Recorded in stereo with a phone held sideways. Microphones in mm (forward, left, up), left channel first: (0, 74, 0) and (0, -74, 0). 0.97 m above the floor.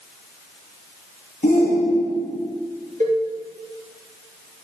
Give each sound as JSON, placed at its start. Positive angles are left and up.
{"t": 1.4, "sound": "a shout", "side_deg": 65, "distance_m": 1.5}
{"t": 3.0, "sound": "a cowbell", "side_deg": -60, "distance_m": 3.0}